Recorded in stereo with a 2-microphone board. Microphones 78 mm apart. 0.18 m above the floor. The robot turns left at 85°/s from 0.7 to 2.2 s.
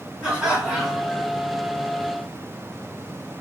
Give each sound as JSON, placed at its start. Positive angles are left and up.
{"t": 0.2, "sound": "laughter", "azimuth_deg": -160, "distance_m": 2.0}